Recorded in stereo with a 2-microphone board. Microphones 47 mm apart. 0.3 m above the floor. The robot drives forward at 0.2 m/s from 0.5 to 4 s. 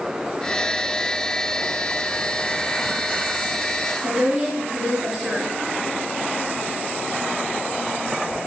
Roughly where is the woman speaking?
Centre.